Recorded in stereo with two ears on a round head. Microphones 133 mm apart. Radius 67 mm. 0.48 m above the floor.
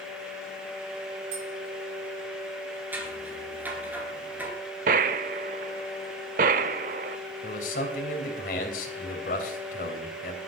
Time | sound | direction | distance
1.3 | tapping | 65° right (ahead or behind) | 6.5 m
2.9 | scissors | 10° right (ahead or behind) | 3 m
4.9 | a gunshot | 60° right (ahead or behind) | 0.8 m
7.4 | a man speaking | 60° left (ahead or behind) | 3 m